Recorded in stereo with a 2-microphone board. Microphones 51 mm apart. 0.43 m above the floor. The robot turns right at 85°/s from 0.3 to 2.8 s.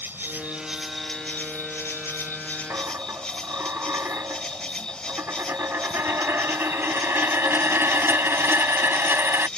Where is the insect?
55° right; by 9.6 s 160° left.